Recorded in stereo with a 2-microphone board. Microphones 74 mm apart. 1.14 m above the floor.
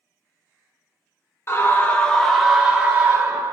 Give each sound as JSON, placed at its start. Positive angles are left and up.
{"t": 1.5, "sound": "a scream", "side_deg": 35, "distance_m": 0.8}